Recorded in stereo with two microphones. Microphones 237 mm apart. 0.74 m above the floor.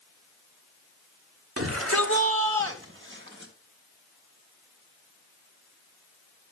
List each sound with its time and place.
1.6 s a shout: 75° right (ahead or behind), 2 m; by 3.5 s 50° right (ahead or behind), 4 m